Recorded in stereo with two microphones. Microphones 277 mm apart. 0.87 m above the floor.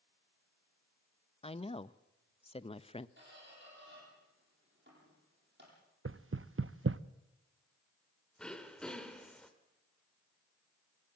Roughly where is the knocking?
Right.